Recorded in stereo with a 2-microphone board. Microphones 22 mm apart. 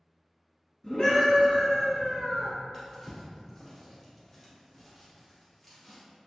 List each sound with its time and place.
0.8 s a scream: 30° left (ahead or behind), 1.3 m; by 2.5 s 35° left (ahead or behind), 1.8 m
2.7 s a drawer: 15° left (ahead or behind), 1.8 m